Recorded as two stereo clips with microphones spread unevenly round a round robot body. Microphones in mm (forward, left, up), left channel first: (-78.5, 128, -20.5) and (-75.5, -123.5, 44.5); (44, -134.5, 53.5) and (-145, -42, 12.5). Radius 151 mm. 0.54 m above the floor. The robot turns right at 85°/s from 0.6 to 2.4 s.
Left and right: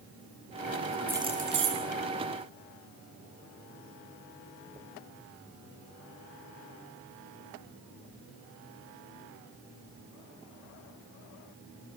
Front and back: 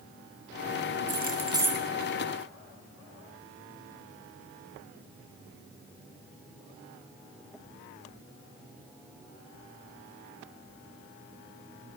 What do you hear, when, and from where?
1.1 s keys jangling: 175° right, 7 m; by 1.9 s 110° right, 7 m